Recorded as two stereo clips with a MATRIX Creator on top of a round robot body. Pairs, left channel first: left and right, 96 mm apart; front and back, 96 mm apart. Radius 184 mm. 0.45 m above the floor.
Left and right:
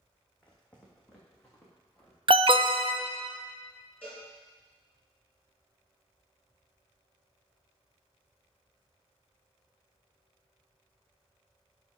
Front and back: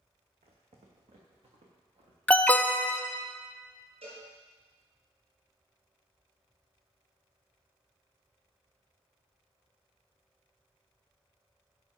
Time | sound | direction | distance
0.4 | footsteps | 170° left | 1.8 m
2.3 | an alarm | 75° right | 0.7 m
4.0 | a cowbell | 165° left | 4.5 m